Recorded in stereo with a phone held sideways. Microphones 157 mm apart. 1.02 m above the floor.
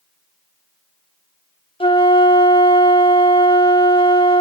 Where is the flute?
35° left (ahead or behind), 0.8 m.